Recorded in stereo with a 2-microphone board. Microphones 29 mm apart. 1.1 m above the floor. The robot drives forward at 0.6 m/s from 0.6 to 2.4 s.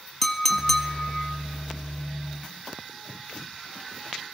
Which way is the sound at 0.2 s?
5° left (ahead or behind).